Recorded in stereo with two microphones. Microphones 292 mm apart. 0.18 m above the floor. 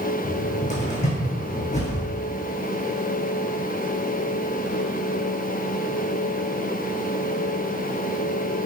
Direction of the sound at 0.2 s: 25° left (ahead or behind).